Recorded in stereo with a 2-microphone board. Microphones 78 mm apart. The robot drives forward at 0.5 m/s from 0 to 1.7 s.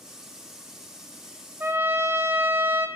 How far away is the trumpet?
About 0.6 m.